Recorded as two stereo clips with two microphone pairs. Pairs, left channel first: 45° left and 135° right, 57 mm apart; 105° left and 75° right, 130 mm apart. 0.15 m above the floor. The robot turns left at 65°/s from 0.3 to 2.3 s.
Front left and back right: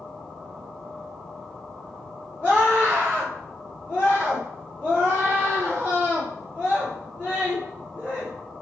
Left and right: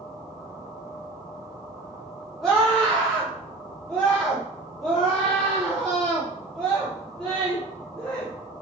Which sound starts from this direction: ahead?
A scream, at 2.4 s.